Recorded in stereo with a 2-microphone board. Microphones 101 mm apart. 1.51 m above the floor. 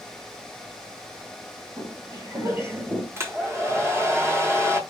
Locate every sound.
1.8 s footsteps: 45° right (ahead or behind), 2 m; by 3.1 s 15° right (ahead or behind), 1.6 m
3.2 s a hair dryer: 25° right (ahead or behind), 1.0 m